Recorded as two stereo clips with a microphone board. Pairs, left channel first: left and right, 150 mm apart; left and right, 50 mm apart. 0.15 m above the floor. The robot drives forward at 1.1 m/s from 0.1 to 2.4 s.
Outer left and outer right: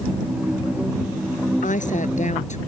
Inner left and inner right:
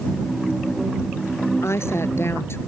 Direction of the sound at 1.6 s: 60° left (ahead or behind).